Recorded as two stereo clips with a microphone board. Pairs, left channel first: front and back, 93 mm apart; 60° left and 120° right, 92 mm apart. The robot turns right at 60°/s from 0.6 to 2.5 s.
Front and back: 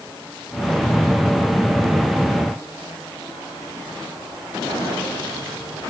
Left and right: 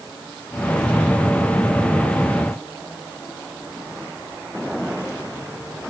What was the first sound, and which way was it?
Only background noise.